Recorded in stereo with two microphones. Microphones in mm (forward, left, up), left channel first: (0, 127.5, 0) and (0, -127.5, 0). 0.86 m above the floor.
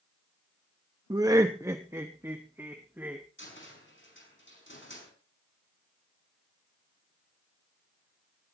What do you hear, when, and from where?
1.1 s laughter: 15° right (ahead or behind), 0.6 m; by 3.2 s 10° right (ahead or behind), 1.7 m
3.4 s a cupboard door: 50° left (ahead or behind), 5.5 m